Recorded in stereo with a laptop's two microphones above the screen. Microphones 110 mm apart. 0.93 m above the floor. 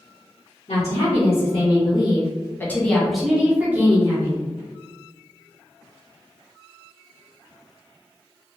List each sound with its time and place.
0.7 s a woman speaking: 70° left (ahead or behind), 1.2 m; by 4.4 s 25° right (ahead or behind), 1.3 m